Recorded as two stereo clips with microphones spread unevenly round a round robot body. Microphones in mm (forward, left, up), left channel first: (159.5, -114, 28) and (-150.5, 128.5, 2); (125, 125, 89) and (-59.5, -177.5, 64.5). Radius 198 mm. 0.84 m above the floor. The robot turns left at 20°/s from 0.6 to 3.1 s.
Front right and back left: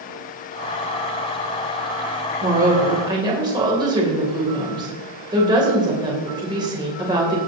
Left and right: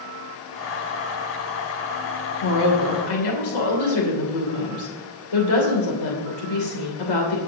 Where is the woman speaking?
75° left, 3 m; by 7.4 s 65° left, 3 m.